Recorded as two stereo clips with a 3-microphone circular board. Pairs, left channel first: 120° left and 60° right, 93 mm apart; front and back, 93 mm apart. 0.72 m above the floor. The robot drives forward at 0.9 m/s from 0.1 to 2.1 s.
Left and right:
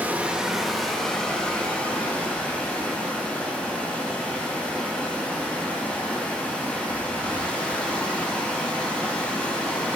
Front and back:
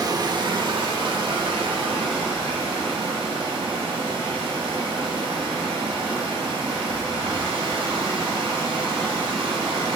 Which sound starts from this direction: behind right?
Running water, at 0.0 s.